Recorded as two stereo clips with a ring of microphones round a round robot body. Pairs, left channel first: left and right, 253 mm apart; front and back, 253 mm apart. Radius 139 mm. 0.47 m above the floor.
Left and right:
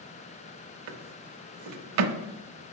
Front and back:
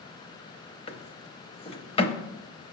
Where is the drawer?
70° right, 0.7 m.